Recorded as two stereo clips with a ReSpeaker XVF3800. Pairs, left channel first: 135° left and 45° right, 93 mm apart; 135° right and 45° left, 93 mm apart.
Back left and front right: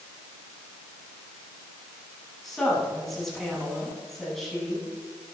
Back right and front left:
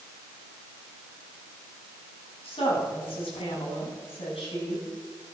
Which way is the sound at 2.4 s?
135° right.